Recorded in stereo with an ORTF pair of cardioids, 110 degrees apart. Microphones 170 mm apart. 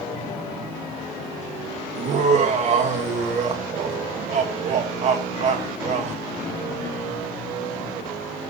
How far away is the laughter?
About 1.8 m.